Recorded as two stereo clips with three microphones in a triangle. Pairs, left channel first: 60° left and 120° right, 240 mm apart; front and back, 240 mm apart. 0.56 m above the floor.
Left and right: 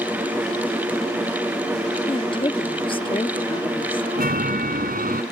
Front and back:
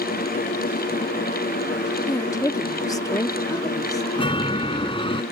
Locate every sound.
2.1 s a woman speaking: 45° left
4.2 s a chime: 70° right